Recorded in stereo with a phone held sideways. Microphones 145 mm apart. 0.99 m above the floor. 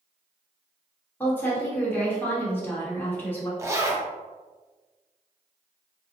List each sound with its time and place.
1.2 s a woman speaking: 15° left (ahead or behind), 1.4 m
3.6 s a zipper: 20° right (ahead or behind), 0.7 m